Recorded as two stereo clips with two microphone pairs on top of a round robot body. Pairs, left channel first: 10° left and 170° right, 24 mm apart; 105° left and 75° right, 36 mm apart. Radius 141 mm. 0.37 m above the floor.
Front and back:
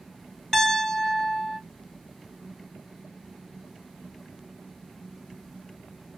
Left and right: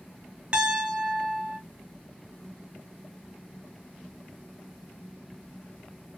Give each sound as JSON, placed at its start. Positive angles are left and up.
{"t": 0.5, "sound": "a piano", "azimuth_deg": -25, "distance_m": 1.9}